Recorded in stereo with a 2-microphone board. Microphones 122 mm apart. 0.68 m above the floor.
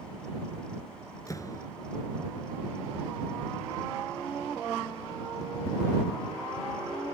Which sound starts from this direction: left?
A door slam, at 1.3 s.